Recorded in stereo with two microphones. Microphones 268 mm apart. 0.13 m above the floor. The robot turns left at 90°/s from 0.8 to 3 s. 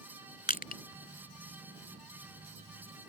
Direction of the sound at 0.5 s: 35° left (ahead or behind).